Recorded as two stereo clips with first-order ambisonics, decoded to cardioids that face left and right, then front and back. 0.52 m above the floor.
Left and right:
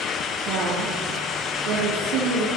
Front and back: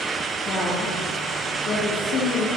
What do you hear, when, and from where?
0.5 s a woman speaking: 55° right, 9.5 m